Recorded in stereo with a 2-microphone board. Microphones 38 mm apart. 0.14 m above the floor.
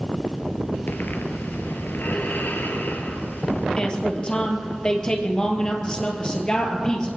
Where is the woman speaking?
25° left (ahead or behind), 2.5 m.